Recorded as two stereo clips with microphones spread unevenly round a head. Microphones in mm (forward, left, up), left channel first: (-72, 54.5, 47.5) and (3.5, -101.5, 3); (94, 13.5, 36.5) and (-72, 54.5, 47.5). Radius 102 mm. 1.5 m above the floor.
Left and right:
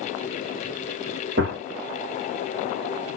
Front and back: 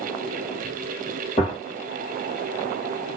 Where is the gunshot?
75° right, 1.5 m.